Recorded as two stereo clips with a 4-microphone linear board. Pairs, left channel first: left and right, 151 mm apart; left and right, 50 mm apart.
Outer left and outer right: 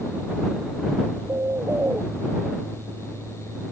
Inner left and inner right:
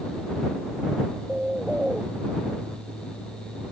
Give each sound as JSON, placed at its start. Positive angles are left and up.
{"t": 1.3, "sound": "a bird", "side_deg": -15}